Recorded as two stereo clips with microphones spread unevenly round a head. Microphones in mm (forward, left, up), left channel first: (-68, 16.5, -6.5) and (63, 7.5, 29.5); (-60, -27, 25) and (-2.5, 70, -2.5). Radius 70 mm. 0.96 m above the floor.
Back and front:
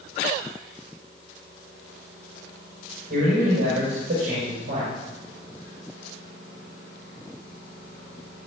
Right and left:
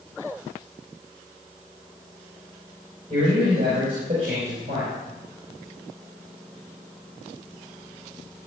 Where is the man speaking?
20° left, 4.5 m.